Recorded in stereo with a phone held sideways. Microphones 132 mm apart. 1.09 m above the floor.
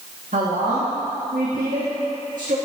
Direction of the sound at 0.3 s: 80° right.